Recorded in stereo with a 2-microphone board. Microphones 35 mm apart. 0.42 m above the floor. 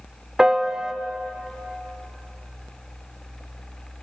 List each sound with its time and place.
0.4 s a piano: 15° right (ahead or behind), 0.8 m